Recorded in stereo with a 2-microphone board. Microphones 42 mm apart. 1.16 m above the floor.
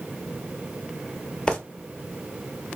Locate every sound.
1.5 s footsteps: 20° left (ahead or behind), 1.3 m